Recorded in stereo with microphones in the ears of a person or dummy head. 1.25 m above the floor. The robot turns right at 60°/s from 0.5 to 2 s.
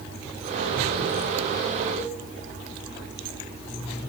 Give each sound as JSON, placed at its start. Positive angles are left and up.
{"t": 2.0, "sound": "a cowbell", "side_deg": 40, "distance_m": 3.5}